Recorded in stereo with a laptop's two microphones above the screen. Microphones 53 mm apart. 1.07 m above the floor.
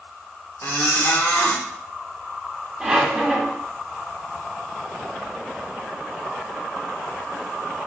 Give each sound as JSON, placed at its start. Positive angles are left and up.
{"t": 0.6, "sound": "a squeak", "side_deg": 55, "distance_m": 1.4}
{"t": 2.8, "sound": "a squeak", "side_deg": -10, "distance_m": 1.3}